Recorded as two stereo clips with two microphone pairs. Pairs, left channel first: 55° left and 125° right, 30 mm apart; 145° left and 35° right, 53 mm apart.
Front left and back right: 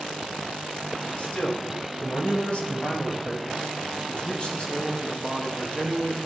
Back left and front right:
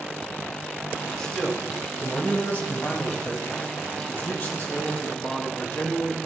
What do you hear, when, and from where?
1.2 s a man speaking: 70° left, 2.5 m; by 6.2 s 115° left, 5.5 m